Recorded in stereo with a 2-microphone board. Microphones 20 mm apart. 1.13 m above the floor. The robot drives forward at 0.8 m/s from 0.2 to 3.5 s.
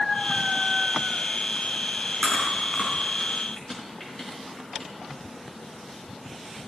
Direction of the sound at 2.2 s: 65° left (ahead or behind).